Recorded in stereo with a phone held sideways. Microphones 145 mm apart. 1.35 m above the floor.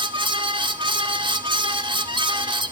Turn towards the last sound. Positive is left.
turn(degrees=-35)  # may be behind; listen again after turning